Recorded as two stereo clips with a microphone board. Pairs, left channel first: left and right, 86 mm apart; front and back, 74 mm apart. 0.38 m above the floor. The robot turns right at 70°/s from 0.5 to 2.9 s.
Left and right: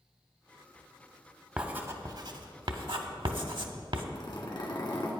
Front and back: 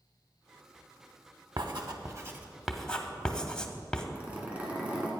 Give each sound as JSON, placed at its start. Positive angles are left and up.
{"t": 1.6, "sound": "writing", "azimuth_deg": -170, "distance_m": 0.8}
{"t": 4.2, "sound": "a zipper", "azimuth_deg": 110, "distance_m": 1.9}